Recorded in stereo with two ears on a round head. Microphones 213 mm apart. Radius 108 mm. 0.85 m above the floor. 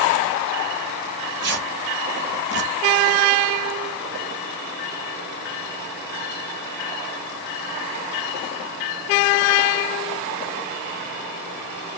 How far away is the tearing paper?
About 2 m.